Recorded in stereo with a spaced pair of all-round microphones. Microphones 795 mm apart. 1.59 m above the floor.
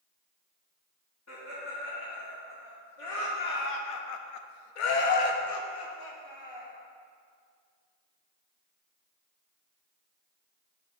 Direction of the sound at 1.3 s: 20° left (ahead or behind).